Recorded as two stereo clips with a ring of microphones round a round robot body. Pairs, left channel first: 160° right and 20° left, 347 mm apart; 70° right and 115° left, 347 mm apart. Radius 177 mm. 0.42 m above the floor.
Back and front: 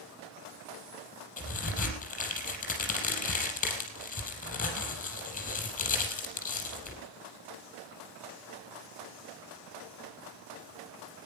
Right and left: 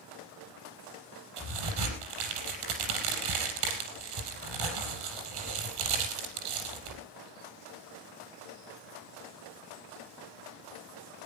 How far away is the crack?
About 4.5 m.